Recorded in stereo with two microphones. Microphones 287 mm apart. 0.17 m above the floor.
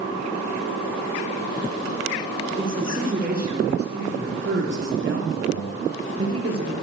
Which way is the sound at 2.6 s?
30° right (ahead or behind).